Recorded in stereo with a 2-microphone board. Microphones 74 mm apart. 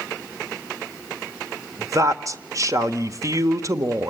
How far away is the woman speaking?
About 1.4 m.